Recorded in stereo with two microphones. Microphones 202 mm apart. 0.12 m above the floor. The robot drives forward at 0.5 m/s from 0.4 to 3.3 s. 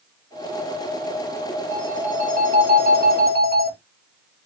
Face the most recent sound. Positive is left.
turn(degrees=-50)  # may be behind; listen again after turning